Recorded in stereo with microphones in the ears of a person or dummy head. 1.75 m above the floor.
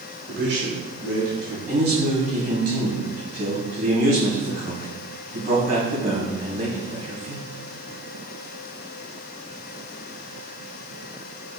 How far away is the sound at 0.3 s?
About 1.0 m.